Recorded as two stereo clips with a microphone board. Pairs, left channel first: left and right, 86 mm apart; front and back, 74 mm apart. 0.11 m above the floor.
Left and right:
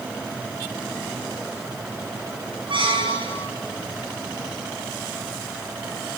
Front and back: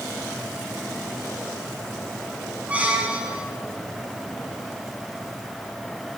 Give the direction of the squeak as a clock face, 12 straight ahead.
4 o'clock.